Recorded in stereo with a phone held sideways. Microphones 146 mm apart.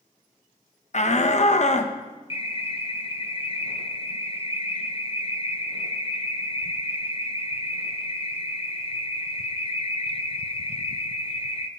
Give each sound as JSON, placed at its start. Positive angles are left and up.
{"t": 0.9, "sound": "a shout", "side_deg": 50, "distance_m": 1.0}
{"t": 2.3, "sound": "an alarm", "side_deg": 40, "distance_m": 0.9}